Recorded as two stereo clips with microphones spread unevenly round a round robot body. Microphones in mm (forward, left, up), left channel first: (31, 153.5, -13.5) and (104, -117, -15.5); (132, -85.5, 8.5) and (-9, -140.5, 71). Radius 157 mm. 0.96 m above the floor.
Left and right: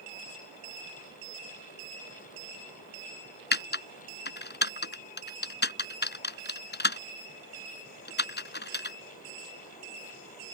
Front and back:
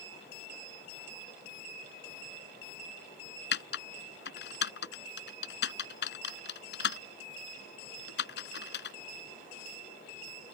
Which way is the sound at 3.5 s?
55° left.